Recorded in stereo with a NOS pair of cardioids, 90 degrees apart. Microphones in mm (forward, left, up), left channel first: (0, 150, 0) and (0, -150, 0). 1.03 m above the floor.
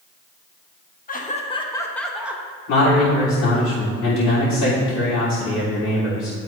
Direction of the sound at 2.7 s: 70° left.